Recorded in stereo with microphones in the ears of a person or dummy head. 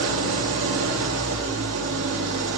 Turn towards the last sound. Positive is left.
turn(degrees=-80)